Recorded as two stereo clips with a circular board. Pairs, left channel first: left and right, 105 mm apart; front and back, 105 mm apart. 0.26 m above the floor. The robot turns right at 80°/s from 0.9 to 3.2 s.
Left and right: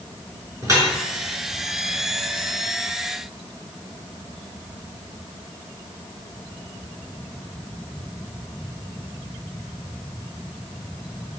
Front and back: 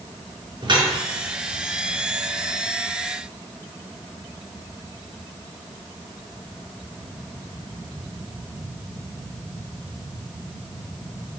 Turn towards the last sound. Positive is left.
turn(degrees=40)